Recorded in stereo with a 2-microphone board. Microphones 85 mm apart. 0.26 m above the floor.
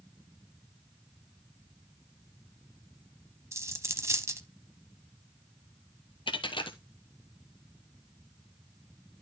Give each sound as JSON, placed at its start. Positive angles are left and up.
{"t": 3.5, "sound": "a dropped coin", "side_deg": -35, "distance_m": 0.8}
{"t": 6.3, "sound": "a dropped coin", "side_deg": 75, "distance_m": 1.0}